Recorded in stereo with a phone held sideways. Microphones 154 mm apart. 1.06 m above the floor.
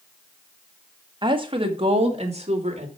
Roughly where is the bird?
No bird in this recording.